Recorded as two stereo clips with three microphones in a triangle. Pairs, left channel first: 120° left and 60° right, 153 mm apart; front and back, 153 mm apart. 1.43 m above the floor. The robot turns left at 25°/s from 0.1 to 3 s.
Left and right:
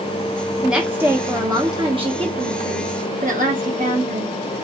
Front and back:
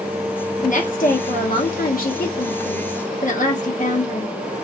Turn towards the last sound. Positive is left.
turn(degrees=-30)